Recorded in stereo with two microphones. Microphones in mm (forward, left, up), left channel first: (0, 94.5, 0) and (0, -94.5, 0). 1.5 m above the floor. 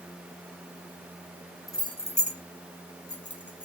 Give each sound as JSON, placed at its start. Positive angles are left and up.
{"t": 1.7, "sound": "keys jangling", "side_deg": 15, "distance_m": 1.5}